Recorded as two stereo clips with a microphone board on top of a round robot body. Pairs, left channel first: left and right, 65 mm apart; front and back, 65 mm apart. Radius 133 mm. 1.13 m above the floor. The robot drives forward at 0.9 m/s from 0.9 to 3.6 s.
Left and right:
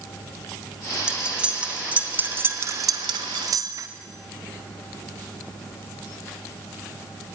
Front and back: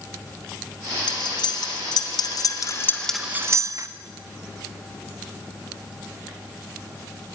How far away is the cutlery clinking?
About 1.9 m.